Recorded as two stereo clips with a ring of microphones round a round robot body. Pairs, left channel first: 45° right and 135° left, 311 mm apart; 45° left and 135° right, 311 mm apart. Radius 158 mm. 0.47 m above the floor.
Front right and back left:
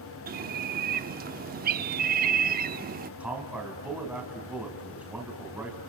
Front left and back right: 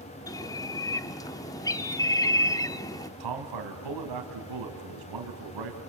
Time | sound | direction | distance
0.3 | a bird | 115° left | 0.7 m
3.2 | a man speaking | 140° right | 3.5 m